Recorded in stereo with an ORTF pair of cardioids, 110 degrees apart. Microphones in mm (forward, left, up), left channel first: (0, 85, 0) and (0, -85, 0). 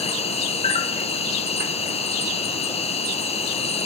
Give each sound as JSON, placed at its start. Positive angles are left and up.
{"t": 0.0, "sound": "an insect", "azimuth_deg": 35, "distance_m": 0.9}